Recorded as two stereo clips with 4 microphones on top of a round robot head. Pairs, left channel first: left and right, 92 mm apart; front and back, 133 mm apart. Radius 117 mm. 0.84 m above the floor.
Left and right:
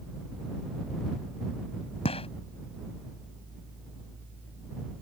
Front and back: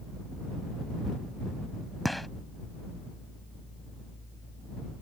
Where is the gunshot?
90° left.